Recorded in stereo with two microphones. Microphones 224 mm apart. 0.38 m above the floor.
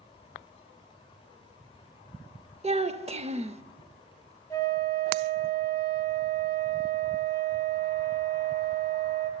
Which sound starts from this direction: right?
A child speaking, at 2.6 s.